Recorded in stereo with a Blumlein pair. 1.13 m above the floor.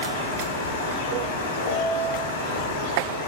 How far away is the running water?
About 0.9 m.